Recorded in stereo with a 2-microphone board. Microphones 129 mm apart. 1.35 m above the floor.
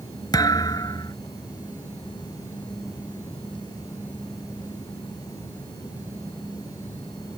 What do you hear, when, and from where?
0.3 s a thud: 30° left (ahead or behind)